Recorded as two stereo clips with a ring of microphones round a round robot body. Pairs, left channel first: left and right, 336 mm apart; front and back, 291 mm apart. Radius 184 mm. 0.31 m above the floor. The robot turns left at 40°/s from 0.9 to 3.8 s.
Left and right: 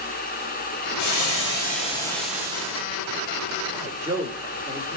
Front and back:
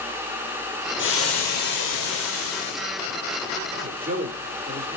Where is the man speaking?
165° right, 1.3 m.